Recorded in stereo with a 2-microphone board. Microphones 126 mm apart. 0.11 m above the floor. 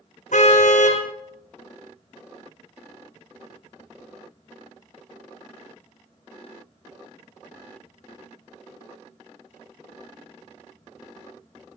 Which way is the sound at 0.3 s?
70° left (ahead or behind).